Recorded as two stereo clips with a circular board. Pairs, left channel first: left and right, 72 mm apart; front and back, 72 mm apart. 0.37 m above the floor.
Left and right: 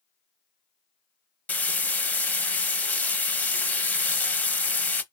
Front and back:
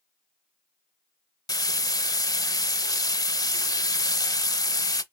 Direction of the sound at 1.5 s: 20° left.